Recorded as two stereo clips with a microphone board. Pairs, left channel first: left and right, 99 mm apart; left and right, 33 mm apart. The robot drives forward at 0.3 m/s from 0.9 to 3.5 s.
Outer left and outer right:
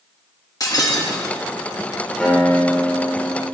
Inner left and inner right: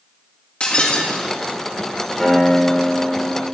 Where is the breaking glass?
40° left (ahead or behind), 1.5 m; by 1.4 s 35° left (ahead or behind), 1.5 m.